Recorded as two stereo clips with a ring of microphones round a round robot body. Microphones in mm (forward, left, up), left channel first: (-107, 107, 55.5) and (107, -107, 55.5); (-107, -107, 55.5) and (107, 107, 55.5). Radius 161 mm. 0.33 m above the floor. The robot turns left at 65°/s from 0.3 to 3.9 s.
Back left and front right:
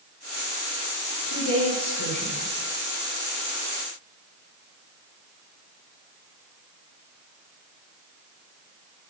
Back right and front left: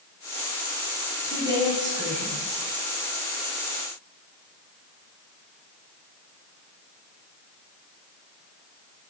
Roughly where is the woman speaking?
Behind.